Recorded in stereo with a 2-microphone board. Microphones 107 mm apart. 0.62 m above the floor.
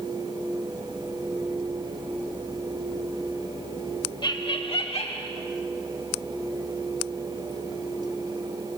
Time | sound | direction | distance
4.2 | laughter | 45° left (ahead or behind) | 1.1 m